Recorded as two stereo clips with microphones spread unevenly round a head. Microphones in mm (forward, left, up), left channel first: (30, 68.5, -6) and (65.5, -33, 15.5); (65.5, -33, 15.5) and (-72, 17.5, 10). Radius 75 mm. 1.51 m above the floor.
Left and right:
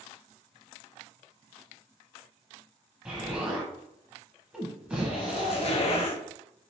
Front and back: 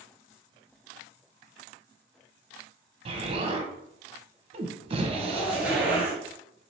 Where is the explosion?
150° right, 0.6 m.